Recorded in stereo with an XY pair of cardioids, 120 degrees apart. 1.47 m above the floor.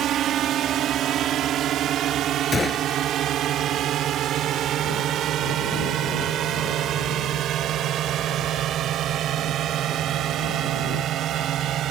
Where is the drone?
65° right.